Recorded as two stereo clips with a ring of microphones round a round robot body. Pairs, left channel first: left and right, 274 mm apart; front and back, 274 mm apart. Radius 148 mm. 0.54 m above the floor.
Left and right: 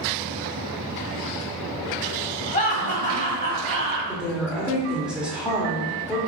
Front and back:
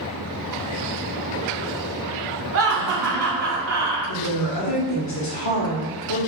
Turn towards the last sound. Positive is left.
turn(degrees=-5)